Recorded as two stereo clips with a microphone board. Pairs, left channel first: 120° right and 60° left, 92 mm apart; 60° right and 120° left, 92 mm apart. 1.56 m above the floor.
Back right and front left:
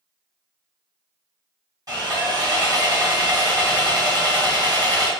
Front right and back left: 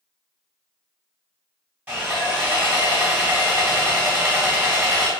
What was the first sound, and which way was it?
Sawing, 60° left.